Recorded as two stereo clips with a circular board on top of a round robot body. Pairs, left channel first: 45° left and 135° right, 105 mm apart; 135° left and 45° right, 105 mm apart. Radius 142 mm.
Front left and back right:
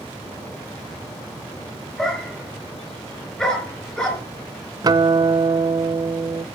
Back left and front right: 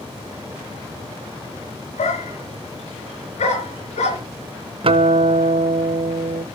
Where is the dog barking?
130° left, 4 m.